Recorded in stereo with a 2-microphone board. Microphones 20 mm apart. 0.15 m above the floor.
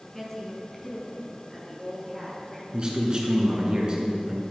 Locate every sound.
0.1 s a woman speaking: 10° left (ahead or behind), 1.7 m; by 2.6 s 15° left (ahead or behind), 3 m
2.7 s a man speaking: 40° right (ahead or behind), 1.9 m